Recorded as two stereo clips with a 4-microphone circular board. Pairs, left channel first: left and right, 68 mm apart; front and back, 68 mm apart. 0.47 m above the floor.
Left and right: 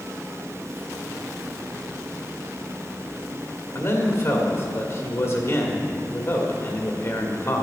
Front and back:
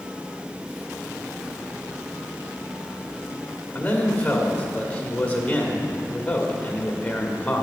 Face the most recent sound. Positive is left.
turn(degrees=60)